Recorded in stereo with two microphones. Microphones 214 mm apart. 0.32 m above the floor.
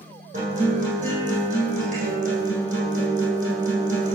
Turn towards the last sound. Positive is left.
turn(degrees=-35)  # may be behind; listen again after turning